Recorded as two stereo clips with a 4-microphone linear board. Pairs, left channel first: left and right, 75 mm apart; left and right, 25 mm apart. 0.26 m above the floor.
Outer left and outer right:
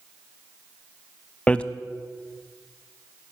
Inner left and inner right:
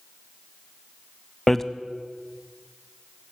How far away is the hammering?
About 0.5 m.